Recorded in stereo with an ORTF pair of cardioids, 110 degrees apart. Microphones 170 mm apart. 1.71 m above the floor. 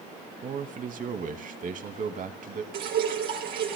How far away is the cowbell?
No cowbell in this recording.